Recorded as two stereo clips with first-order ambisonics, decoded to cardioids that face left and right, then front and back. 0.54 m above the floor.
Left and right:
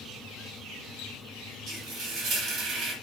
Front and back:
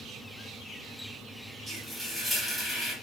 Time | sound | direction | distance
1.7 | frying | 105° right | 1.1 m